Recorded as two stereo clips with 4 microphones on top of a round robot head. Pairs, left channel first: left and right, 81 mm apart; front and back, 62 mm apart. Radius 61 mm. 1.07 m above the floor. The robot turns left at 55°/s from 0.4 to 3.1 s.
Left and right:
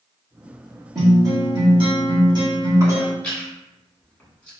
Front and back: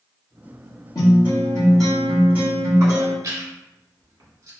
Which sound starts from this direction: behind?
Chewing, at 3.2 s.